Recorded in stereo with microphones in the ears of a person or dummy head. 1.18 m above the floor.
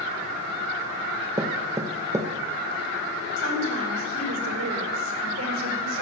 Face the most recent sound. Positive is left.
turn(degrees=-80)